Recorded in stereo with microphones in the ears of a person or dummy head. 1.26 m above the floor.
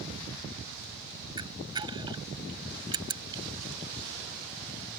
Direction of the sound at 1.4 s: 20° right (ahead or behind).